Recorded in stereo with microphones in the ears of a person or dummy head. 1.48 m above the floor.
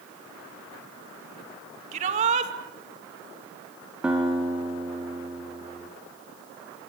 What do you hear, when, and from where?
1.9 s a shout: 40° right (ahead or behind), 2 m
4.0 s a guitar: 5° right (ahead or behind), 3.5 m